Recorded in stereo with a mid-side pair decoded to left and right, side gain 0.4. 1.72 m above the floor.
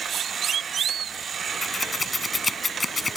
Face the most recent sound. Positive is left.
turn(degrees=20)